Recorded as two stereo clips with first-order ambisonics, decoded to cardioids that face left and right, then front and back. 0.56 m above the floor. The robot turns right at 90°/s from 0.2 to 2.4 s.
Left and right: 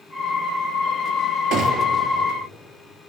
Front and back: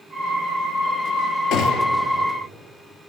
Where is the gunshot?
35° right, 2.0 m; by 2.0 s 5° left, 2.0 m.